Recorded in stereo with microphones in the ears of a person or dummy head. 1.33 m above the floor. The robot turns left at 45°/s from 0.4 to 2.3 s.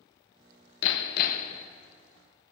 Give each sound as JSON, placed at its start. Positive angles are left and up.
{"t": 0.8, "sound": "hammering", "azimuth_deg": 75, "distance_m": 1.1}